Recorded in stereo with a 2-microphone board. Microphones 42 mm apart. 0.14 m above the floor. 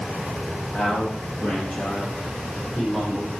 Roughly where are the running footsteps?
No running footsteps in this recording.